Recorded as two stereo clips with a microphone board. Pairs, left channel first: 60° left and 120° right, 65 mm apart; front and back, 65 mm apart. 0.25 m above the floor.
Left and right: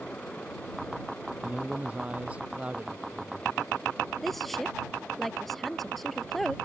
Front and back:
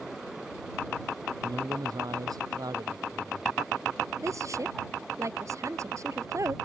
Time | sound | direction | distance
1.4 | a man speaking | 170° left | ?
4.2 | a woman speaking | 150° left | ?